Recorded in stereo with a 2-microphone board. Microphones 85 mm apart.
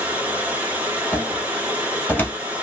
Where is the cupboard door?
20° left (ahead or behind), 1.4 m.